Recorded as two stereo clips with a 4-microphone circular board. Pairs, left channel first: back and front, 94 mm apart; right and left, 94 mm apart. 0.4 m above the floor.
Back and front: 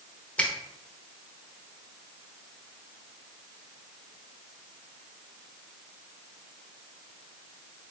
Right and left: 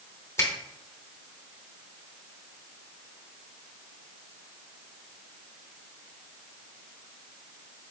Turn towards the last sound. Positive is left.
turn(degrees=-120)